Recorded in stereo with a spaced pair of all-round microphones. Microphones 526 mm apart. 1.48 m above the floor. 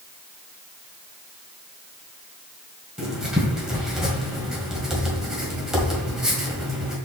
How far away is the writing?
About 1.8 m.